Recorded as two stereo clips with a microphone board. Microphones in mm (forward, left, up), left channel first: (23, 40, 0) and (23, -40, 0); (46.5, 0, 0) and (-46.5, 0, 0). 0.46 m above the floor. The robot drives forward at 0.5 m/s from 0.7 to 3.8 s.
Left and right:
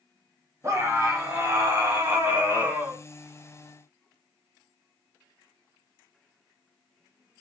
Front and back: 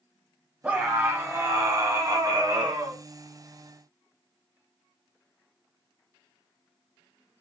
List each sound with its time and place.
0.6 s a scream: 115° right, 1.4 m; by 3.0 s 150° right, 2 m